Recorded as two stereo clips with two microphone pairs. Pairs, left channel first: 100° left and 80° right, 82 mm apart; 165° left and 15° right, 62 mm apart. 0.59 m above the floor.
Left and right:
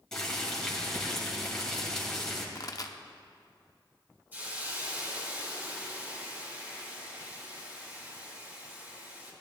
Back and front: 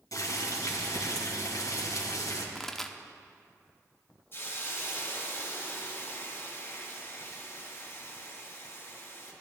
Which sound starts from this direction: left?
A pop, at 2.5 s.